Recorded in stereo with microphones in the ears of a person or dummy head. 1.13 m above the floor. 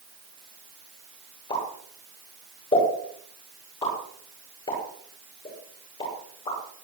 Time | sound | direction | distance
1.5 | a pop | 30° left (ahead or behind) | 9.5 m